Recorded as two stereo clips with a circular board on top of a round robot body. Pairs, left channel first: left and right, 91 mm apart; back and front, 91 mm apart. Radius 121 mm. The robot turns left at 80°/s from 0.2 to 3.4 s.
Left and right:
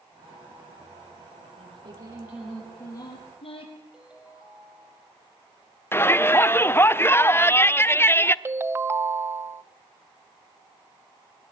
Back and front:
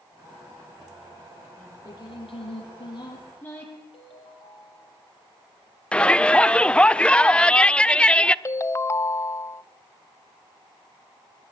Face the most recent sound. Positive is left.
turn(degrees=-140)